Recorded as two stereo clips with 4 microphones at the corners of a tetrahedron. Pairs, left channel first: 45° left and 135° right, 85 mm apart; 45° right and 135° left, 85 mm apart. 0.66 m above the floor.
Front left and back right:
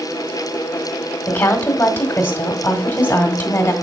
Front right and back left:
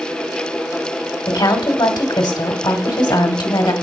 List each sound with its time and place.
1.3 s a woman speaking: 15° right, 1.7 m